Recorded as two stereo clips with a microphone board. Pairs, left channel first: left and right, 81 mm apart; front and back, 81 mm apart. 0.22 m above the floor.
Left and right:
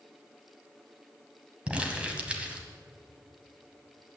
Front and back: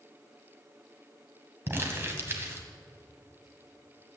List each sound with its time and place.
1.7 s crumpling: 150° right, 1.7 m